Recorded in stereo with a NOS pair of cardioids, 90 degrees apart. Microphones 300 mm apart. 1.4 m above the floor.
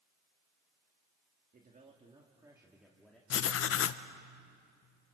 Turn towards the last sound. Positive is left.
turn(degrees=50)